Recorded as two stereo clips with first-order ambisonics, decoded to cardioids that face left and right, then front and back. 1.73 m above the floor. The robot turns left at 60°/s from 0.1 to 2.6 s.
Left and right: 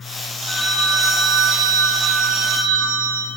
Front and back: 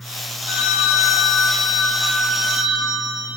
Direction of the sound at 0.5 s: 10° left.